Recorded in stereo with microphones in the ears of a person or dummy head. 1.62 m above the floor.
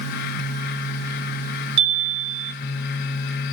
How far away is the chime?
About 0.7 m.